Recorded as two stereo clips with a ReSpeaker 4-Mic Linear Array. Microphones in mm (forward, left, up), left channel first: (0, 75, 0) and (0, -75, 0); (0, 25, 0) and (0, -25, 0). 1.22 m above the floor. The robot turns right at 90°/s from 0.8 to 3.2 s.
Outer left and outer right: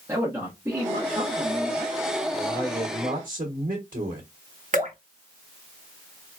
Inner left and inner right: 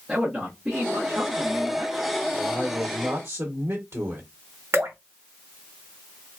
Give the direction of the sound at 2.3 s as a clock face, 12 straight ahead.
6 o'clock.